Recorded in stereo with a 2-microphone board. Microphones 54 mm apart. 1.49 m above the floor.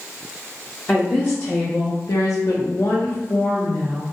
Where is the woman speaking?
25° left (ahead or behind), 0.7 m; by 4.1 s 40° left (ahead or behind), 1.3 m.